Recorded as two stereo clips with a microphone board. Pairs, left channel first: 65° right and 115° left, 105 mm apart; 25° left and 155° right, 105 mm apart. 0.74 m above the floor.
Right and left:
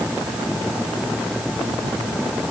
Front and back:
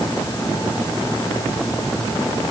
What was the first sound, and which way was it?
Only background noise.